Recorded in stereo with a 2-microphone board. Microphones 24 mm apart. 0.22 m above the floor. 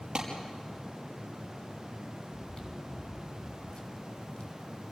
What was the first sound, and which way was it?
A clap, 40° right (ahead or behind).